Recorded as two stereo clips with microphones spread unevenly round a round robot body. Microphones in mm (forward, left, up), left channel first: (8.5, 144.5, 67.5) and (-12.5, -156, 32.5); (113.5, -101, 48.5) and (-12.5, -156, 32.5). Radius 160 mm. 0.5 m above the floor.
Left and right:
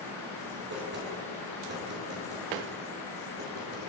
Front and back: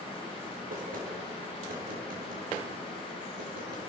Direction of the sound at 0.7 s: 150° right.